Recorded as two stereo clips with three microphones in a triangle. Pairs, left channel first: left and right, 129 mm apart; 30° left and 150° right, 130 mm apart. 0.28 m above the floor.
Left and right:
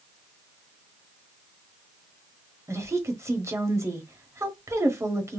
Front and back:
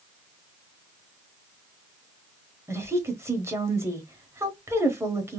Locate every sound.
2.7 s a woman speaking: 120° right, 1.0 m